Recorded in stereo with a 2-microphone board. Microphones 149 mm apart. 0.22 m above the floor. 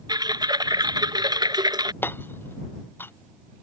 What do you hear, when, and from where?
0.1 s typing on a keyboard: 30° right (ahead or behind)
2.0 s hammering: 15° left (ahead or behind)